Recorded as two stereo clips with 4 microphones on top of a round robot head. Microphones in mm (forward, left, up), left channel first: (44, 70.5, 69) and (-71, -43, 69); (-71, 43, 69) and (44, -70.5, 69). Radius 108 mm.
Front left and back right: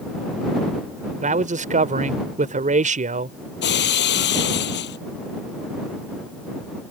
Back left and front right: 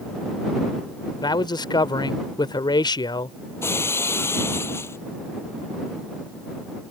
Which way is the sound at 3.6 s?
60° left.